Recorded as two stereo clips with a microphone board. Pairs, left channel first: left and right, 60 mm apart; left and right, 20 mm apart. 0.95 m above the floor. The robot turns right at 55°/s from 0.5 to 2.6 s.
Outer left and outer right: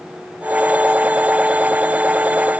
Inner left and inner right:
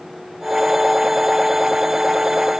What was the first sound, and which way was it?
Only background noise.